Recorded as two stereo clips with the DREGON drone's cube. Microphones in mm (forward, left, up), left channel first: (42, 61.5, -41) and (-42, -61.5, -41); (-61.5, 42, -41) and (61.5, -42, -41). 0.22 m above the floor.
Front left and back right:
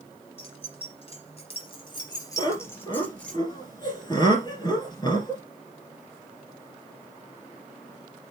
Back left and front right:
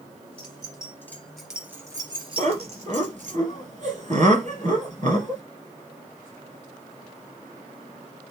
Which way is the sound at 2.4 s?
Straight ahead.